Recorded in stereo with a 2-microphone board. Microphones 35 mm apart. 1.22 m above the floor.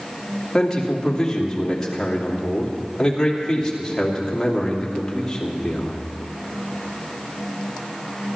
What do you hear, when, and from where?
0.5 s a man speaking: 15° left (ahead or behind), 2.5 m